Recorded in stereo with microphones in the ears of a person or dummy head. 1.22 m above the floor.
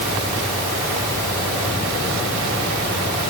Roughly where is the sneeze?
No sneeze in this recording.